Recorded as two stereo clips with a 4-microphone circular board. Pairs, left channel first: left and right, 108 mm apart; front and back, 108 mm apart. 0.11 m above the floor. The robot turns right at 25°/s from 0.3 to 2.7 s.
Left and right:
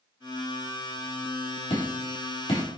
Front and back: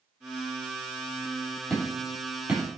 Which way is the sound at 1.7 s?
80° left.